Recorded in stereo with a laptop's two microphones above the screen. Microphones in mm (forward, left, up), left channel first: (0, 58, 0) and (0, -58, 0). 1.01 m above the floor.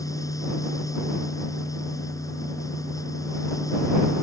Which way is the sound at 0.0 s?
30° left (ahead or behind).